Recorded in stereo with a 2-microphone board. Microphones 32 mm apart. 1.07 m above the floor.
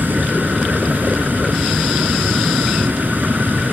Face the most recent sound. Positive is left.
turn(degrees=-80)